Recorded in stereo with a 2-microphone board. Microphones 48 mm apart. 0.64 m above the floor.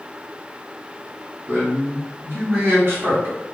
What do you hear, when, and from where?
1.5 s a man speaking: 55° right (ahead or behind), 1.9 m